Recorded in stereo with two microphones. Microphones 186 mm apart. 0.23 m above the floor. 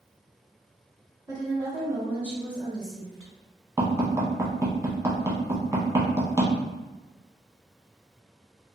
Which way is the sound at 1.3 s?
25° right (ahead or behind).